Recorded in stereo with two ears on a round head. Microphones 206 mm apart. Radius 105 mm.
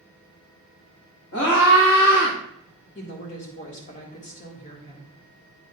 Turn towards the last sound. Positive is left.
turn(degrees=30)  # may be behind; listen again after turning